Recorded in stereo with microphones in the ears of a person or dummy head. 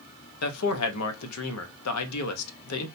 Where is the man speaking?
80° left, 0.6 m.